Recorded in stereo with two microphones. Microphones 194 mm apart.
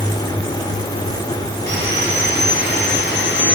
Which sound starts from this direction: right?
Sawing, at 1.7 s.